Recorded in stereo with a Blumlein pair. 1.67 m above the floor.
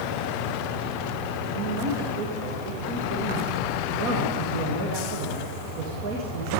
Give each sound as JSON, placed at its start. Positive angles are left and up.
{"t": 1.6, "sound": "a man speaking", "azimuth_deg": -45, "distance_m": 2.0}